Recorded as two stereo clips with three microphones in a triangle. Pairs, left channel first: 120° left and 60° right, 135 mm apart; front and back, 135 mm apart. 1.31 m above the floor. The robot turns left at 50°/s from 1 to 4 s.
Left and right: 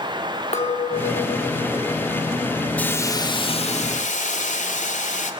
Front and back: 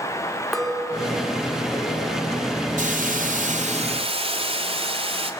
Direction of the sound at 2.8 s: 160° right.